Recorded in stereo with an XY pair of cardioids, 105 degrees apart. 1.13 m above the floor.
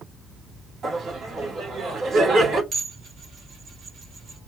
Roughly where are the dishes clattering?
Ahead right.